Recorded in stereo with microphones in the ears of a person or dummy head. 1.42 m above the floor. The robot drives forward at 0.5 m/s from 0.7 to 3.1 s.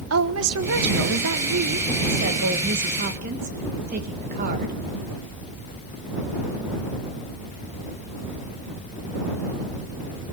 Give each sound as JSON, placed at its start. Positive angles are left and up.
{"t": 0.1, "sound": "a woman speaking", "side_deg": -80, "distance_m": 1.3}